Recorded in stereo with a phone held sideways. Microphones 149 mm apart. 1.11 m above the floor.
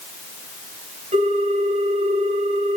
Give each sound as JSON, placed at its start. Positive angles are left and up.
{"t": 1.1, "sound": "a ringtone", "side_deg": -50, "distance_m": 5.5}